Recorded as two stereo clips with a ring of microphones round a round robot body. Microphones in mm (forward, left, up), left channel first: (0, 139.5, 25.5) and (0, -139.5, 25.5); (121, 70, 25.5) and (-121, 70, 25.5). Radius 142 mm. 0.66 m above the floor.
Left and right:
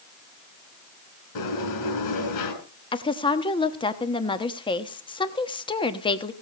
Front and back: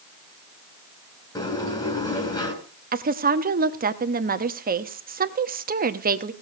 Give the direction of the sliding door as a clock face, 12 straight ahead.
10 o'clock.